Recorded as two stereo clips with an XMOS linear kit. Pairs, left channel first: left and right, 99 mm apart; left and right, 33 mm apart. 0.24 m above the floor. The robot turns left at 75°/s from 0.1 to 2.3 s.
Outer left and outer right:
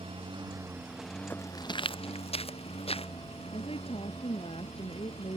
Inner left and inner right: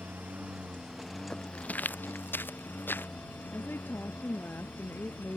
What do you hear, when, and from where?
0.0 s a lawn mower: 110° right; by 5.4 s 85° left
1.3 s footsteps: 20° left (ahead or behind); by 3.1 s 80° left
3.5 s a woman speaking: 75° left (ahead or behind)